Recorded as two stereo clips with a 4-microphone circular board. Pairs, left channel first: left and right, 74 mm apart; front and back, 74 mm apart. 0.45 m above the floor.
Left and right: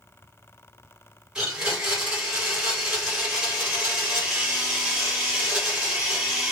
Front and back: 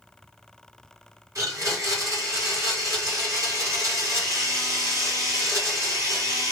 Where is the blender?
165° right, 2 m.